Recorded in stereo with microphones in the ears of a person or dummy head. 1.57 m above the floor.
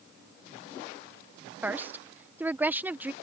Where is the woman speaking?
5° right (ahead or behind).